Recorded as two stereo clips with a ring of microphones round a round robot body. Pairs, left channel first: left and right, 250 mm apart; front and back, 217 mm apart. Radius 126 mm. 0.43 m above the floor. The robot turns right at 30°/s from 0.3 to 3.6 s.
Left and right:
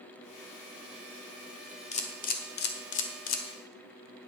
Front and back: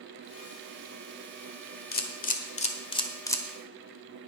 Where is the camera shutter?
30° left, 1.4 m; by 3.4 s 75° left, 1.4 m.